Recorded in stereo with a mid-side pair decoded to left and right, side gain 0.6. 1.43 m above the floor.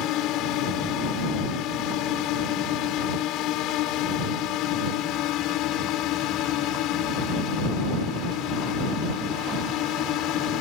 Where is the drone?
65° left.